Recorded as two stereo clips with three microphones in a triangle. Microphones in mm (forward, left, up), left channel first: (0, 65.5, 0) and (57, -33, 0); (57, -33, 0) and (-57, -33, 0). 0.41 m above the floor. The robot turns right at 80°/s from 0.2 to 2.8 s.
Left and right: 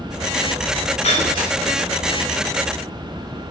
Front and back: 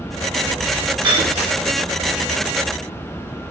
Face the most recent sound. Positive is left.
turn(degrees=-85)